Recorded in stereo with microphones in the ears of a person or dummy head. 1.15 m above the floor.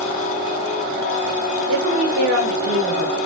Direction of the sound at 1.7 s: 75° right (ahead or behind).